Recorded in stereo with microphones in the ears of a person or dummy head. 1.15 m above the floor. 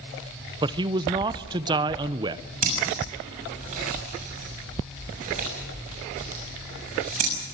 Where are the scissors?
40° right (ahead or behind), 6.5 m.